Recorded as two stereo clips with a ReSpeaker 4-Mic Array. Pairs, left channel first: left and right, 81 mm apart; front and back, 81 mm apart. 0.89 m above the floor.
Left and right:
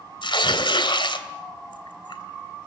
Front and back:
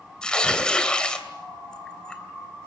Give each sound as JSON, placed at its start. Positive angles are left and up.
{"t": 0.2, "sound": "tearing paper", "azimuth_deg": 80, "distance_m": 2.5}